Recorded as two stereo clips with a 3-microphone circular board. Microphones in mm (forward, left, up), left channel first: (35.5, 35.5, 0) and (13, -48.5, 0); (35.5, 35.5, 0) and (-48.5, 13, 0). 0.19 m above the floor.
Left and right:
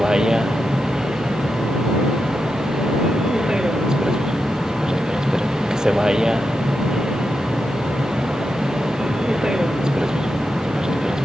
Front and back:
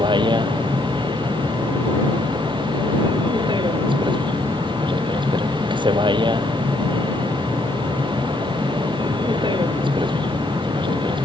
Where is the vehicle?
175° left.